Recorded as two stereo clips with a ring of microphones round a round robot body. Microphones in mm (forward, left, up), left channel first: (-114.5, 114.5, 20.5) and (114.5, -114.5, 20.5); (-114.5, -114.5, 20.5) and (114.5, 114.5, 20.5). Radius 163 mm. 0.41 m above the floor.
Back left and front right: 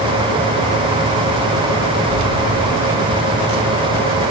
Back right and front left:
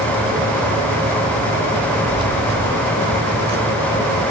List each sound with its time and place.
2.1 s keys jangling: 35° right, 3 m; by 4.0 s 15° right, 4 m